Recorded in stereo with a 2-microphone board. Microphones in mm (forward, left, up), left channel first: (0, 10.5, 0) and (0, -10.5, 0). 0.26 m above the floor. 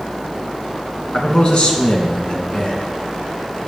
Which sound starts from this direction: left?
A man speaking, at 1.1 s.